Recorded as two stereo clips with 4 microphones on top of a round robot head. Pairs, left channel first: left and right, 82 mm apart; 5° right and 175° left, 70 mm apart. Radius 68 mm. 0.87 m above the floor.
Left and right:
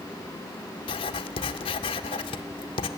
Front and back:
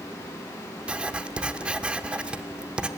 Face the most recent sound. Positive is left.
turn(degrees=100)